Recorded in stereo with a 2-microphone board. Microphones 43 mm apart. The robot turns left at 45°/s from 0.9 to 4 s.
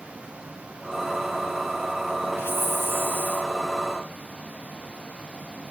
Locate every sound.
2.4 s a hiss: 100° left, 1.3 m; by 3.5 s 50° left, 1.3 m